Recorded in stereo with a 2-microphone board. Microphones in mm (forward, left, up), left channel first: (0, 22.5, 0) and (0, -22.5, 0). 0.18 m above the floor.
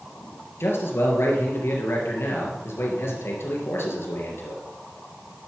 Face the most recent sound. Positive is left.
turn(degrees=65)  # may be behind; listen again after turning